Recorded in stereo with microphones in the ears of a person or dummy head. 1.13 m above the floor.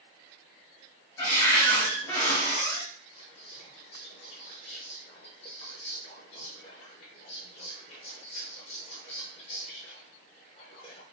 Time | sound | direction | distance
1.2 | a cupboard door | 20° left (ahead or behind) | 1.1 m
3.1 | whispering | 30° left (ahead or behind) | 0.7 m